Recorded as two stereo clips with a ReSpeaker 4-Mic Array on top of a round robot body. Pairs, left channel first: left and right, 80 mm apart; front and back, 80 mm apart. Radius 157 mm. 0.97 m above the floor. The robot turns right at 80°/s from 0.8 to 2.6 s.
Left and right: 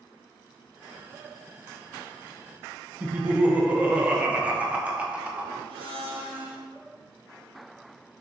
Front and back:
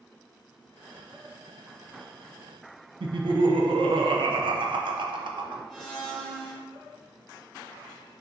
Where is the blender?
95° right, 0.8 m.